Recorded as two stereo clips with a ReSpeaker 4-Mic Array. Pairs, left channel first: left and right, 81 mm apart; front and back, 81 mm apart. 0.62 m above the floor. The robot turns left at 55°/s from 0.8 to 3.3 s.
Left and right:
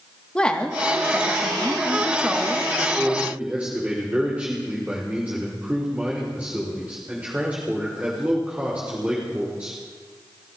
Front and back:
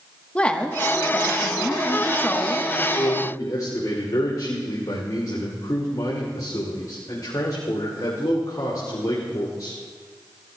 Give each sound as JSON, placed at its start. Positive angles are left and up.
{"t": 0.3, "sound": "a woman speaking", "azimuth_deg": 40, "distance_m": 0.9}
{"t": 2.8, "sound": "a man speaking", "azimuth_deg": 5, "distance_m": 2.5}